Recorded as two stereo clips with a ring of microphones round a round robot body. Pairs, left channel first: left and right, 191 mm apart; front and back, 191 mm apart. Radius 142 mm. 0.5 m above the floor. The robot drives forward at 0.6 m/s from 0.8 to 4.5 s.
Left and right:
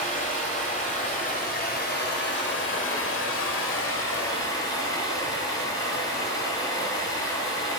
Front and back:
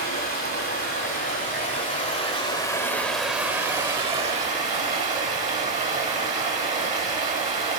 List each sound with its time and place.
0.0 s running water: 35° left, 1.8 m; by 7.8 s 125° left, 1.3 m